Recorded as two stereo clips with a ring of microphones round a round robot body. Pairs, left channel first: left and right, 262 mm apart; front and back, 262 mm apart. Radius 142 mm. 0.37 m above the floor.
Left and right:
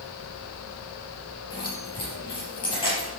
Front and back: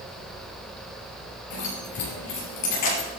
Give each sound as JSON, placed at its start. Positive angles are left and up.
{"t": 1.5, "sound": "keys jangling", "azimuth_deg": 15, "distance_m": 5.0}